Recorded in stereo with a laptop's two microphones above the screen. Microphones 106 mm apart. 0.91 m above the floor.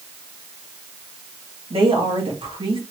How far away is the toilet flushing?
No toilet flushing in this recording.